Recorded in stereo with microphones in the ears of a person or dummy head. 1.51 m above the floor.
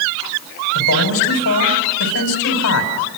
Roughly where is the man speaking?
Left.